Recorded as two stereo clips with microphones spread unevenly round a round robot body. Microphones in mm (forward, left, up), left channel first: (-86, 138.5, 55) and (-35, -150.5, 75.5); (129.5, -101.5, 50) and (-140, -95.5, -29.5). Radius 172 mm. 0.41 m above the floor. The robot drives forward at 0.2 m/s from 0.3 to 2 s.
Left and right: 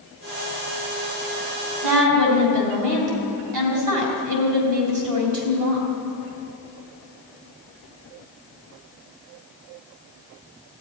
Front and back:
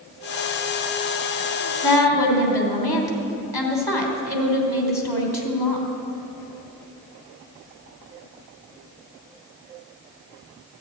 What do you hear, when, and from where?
1.8 s a woman speaking: 85° right, 3 m